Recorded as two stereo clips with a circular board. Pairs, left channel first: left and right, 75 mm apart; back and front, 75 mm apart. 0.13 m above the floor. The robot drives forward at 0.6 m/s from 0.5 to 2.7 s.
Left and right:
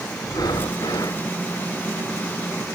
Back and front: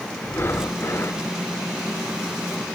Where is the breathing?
120° left; by 1.2 s 125° left.